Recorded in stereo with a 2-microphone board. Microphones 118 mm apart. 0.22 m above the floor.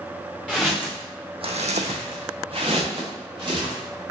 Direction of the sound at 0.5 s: 5° left (ahead or behind).